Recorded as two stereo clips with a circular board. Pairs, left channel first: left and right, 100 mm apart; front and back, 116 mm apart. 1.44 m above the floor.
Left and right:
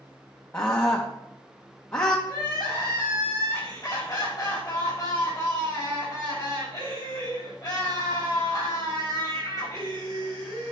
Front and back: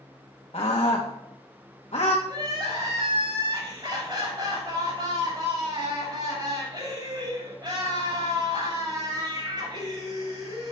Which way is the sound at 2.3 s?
135° left.